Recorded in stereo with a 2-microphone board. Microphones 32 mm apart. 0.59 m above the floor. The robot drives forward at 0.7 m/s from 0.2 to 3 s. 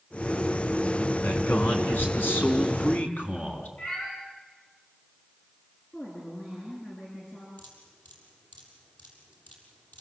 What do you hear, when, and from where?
1.2 s a man speaking: 80° left, 4.5 m; by 3.7 s 75° left (ahead or behind), 4.5 m
3.8 s a cat meowing: 65° left (ahead or behind), 8.5 m
5.9 s a woman speaking: 70° left (ahead or behind), 7 m
7.6 s dripping: 80° left, 7 m